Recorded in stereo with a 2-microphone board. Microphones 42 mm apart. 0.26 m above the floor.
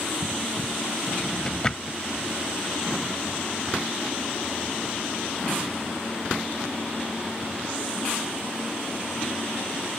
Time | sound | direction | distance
1.1 | a drawer | 25° left (ahead or behind) | ?